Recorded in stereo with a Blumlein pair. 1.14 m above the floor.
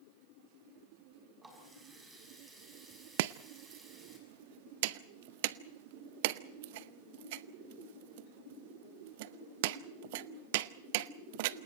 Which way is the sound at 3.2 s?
50° right.